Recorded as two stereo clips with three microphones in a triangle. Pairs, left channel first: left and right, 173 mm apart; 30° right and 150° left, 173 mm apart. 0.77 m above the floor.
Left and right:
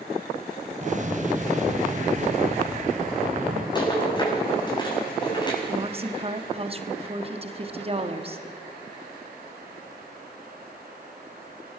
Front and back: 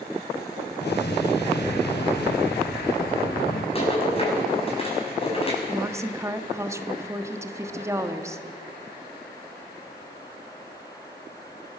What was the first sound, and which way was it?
An explosion, 45° right.